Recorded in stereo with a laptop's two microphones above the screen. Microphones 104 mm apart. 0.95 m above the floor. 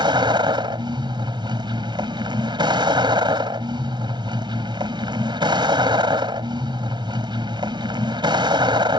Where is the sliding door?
No sliding door in this recording.